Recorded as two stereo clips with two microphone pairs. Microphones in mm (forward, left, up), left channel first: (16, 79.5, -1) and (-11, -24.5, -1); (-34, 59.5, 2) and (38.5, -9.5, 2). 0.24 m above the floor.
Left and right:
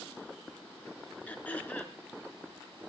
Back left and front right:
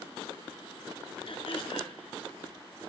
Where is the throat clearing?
150° left, 2.5 m.